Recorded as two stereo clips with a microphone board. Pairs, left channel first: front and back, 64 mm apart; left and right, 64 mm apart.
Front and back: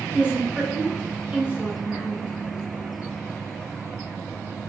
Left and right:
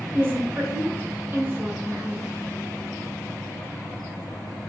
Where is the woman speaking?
125° right, 1.3 m.